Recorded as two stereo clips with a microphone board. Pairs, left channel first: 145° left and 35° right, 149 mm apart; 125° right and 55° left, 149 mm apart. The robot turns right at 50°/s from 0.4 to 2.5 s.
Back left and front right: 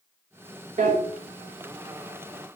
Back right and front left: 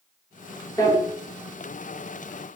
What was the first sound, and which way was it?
A drawer, 60° right.